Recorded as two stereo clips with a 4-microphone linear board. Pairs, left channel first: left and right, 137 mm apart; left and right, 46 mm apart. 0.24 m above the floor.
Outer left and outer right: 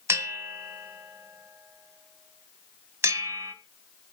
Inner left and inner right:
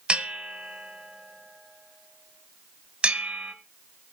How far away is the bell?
About 1.5 m.